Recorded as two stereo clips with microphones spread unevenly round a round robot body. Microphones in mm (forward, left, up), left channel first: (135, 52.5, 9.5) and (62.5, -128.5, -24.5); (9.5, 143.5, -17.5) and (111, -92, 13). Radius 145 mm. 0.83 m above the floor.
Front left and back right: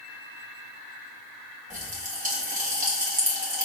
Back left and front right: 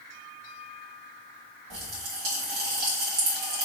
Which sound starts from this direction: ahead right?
A pop, at 1.7 s.